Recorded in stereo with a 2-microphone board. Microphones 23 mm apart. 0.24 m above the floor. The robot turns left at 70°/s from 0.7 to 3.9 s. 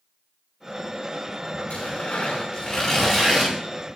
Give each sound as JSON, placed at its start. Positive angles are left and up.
{"t": 1.7, "sound": "tearing paper", "azimuth_deg": 105, "distance_m": 9.0}